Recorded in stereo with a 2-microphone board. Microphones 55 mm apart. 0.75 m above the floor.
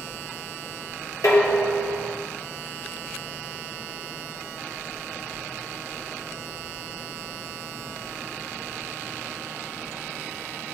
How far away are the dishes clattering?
About 1.4 m.